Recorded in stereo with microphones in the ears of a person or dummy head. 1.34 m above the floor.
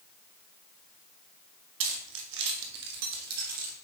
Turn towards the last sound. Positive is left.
turn(degrees=-50)  # may be behind; listen again after turning